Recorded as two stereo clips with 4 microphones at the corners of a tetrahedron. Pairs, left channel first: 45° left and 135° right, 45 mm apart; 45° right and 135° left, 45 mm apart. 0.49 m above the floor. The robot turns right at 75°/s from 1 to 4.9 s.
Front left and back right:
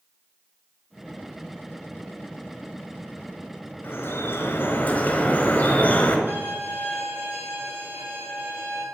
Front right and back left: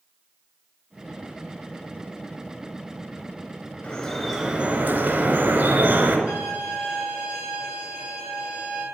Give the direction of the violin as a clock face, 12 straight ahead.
6 o'clock.